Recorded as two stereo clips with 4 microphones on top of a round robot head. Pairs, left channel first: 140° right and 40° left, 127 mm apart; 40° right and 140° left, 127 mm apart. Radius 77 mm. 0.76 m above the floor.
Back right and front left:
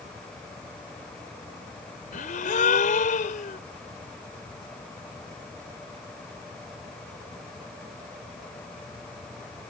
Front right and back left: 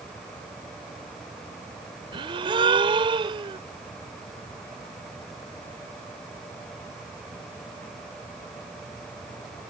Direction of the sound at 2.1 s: 165° right.